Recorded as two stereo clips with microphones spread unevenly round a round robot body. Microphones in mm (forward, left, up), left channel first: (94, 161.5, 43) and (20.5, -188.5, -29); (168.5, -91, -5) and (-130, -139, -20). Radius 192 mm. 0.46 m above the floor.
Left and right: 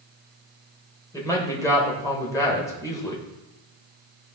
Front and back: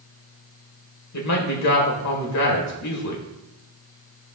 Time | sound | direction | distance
1.1 | a man speaking | 10° right | 1.8 m